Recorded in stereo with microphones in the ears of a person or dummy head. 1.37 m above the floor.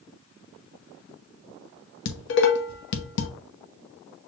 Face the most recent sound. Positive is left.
turn(degrees=60)  # may be behind; listen again after turning